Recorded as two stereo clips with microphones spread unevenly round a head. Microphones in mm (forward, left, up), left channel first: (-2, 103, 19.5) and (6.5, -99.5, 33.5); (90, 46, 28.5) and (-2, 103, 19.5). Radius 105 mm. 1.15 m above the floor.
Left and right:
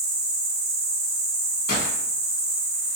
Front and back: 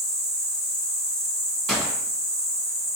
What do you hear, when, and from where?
0.0 s an insect: 100° right, 0.7 m
1.7 s a gunshot: 55° left, 1.3 m